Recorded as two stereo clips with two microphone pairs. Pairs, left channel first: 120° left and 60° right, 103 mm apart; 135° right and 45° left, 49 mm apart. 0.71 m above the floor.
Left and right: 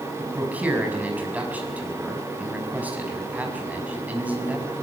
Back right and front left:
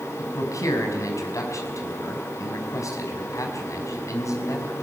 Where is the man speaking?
135° right, 5.5 m.